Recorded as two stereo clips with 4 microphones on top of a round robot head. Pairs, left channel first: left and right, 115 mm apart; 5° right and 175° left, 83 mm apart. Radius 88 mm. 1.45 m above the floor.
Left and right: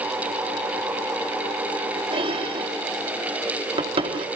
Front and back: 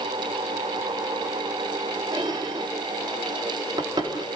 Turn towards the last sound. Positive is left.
turn(degrees=-125)